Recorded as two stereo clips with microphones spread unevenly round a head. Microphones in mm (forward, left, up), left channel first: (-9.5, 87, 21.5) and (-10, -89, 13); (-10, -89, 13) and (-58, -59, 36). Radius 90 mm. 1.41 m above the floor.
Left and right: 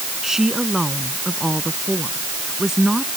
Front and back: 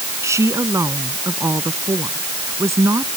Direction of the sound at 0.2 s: Straight behind.